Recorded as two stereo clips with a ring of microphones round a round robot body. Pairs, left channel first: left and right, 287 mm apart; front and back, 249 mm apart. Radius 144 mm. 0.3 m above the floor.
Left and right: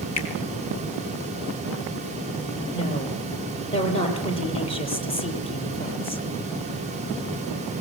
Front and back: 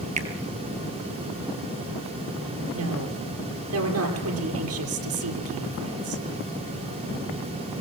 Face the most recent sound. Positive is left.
turn(degrees=160)